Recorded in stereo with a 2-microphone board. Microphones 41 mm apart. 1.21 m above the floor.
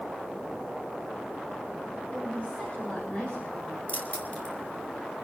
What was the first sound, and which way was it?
A woman speaking, 40° left (ahead or behind).